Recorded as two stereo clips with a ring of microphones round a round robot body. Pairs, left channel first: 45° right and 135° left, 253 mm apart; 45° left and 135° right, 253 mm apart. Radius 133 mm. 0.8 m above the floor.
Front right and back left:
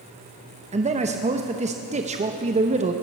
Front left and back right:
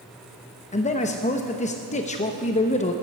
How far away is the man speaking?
About 0.8 m.